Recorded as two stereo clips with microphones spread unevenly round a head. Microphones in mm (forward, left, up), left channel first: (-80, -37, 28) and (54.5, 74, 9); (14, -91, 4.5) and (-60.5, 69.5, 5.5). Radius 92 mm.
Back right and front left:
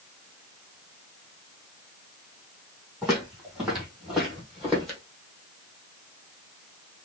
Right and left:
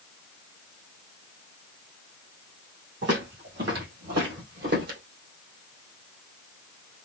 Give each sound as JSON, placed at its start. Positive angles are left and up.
{"t": 3.0, "sound": "footsteps", "azimuth_deg": 125, "distance_m": 3.5}